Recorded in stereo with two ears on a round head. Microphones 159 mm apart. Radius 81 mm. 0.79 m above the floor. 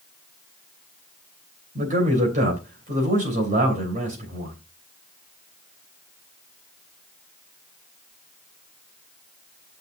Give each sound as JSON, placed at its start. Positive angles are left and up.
{"t": 1.8, "sound": "a man speaking", "side_deg": -50, "distance_m": 3.0}